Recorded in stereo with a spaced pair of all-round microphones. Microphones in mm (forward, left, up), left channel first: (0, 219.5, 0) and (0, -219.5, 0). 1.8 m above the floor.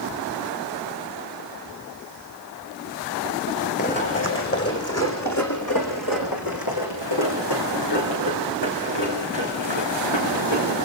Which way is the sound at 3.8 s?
20° left (ahead or behind).